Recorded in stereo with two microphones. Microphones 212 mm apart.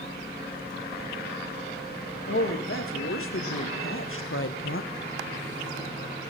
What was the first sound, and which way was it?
A woman speaking, 85° left.